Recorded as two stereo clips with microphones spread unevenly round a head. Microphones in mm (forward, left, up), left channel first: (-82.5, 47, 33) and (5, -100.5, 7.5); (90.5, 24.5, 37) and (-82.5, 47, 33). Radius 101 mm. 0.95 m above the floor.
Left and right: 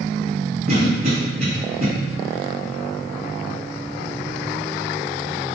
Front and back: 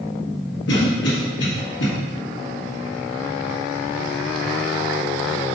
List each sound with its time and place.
0.7 s a cough: 10° right, 1.4 m